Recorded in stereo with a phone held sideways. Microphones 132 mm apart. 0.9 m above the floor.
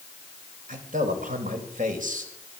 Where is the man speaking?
80° right, 5 m.